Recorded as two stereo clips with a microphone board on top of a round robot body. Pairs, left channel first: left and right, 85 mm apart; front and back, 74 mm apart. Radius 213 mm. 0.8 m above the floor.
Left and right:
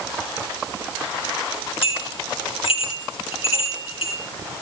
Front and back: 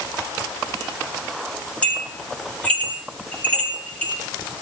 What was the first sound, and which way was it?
A bell, 75° left.